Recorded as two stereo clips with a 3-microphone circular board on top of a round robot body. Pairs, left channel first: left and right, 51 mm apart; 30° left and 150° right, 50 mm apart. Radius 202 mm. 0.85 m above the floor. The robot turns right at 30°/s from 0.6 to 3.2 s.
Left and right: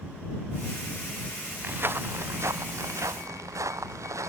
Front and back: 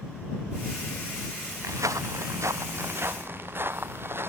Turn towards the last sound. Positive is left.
turn(degrees=-105)